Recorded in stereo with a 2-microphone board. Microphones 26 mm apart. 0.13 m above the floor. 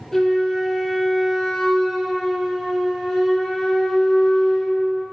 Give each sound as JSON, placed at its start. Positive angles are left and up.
{"t": 0.1, "sound": "a flute", "side_deg": 20, "distance_m": 2.5}